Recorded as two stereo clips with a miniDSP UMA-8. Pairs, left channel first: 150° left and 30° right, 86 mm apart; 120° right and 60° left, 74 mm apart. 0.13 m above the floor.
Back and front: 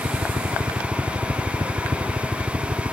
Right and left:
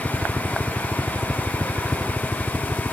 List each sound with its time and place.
0.0 s a helicopter: 35° right; by 2.9 s 50° right